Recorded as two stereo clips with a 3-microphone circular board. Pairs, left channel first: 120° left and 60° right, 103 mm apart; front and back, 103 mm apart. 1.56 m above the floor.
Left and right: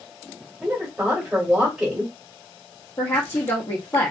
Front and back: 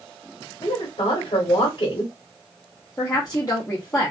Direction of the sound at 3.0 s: 55° left.